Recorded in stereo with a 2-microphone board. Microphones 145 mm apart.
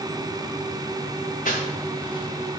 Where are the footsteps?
70° left (ahead or behind), 1.8 m; by 2.6 s 10° left (ahead or behind), 1.7 m.